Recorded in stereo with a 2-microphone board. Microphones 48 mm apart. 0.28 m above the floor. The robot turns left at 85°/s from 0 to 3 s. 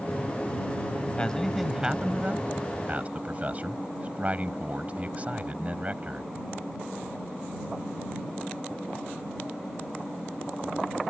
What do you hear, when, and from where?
1.2 s a man speaking: 35° left; by 6.3 s 120° right